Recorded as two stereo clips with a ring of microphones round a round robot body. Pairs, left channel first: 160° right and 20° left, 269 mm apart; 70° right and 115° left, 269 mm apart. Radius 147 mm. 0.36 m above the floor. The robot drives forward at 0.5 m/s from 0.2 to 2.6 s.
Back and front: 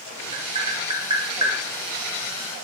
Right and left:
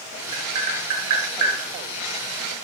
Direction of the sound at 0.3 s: 90° left.